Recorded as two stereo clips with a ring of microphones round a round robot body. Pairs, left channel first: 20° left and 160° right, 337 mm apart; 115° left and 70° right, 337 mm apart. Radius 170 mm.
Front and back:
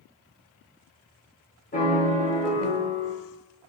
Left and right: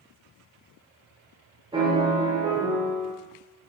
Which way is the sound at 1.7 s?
10° right.